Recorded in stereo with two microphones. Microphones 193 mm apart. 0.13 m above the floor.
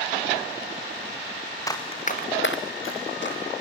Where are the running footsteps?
15° left (ahead or behind), 1.5 m; by 3.4 s 60° left (ahead or behind), 1.8 m.